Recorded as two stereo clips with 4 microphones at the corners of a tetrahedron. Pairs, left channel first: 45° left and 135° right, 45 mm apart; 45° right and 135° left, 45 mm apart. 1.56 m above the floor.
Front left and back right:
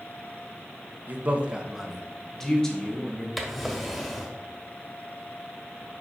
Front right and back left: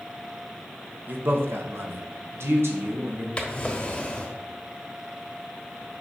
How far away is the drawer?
About 1.3 m.